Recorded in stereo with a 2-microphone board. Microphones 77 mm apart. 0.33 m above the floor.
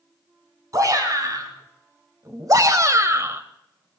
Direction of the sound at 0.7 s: 50° right (ahead or behind).